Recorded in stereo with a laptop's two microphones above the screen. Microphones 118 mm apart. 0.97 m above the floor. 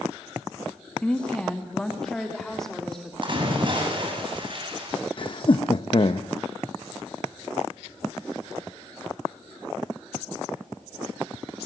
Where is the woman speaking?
10° left (ahead or behind), 1.9 m; by 3.1 s 5° left (ahead or behind), 3 m.